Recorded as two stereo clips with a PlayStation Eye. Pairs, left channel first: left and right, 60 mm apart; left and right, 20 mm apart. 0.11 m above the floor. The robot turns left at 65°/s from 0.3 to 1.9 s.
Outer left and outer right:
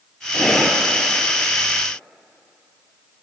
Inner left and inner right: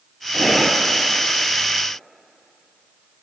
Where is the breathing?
20° left, 0.7 m; by 0.8 s 15° right, 0.7 m.